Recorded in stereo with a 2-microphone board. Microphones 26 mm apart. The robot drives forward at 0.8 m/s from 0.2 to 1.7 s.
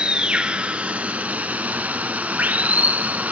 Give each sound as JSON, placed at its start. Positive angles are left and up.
{"t": 0.0, "sound": "running water", "side_deg": -40, "distance_m": 1.5}